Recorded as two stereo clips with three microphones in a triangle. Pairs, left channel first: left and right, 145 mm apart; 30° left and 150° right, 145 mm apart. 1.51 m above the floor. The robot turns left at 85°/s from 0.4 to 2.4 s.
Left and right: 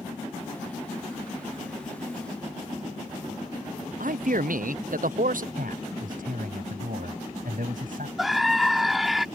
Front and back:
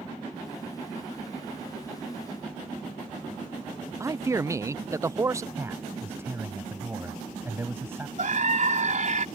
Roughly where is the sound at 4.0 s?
Right.